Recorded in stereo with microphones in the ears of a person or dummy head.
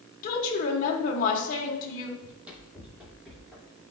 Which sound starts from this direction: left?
A woman speaking, at 0.2 s.